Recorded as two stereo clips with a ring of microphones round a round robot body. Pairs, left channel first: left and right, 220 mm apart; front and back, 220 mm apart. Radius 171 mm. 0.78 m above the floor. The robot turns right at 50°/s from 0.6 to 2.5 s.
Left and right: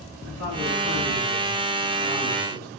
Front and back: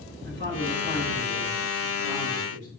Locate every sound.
0.2 s a man speaking: 110° right, 3 m; by 2.7 s 15° right, 3 m